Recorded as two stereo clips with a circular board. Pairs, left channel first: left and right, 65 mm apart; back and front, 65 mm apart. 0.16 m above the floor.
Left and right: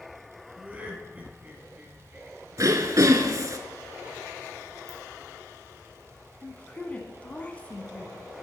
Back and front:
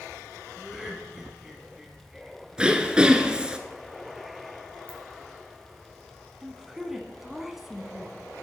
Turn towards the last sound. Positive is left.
turn(degrees=75)